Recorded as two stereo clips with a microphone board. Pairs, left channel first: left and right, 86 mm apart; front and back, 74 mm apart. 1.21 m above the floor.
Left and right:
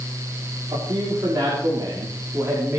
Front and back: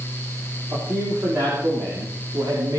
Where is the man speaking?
130° right, 3.5 m; by 2.8 s 150° right, 3 m.